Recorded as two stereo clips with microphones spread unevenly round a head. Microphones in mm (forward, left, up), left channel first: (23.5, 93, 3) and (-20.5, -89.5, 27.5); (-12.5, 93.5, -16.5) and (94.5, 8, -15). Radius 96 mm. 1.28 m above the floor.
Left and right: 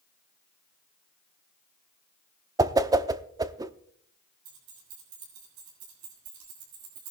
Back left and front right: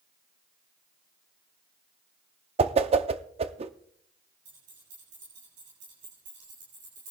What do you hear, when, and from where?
2.6 s a whoosh: 30° right, 0.6 m
4.5 s keys jangling: 90° right, 6 m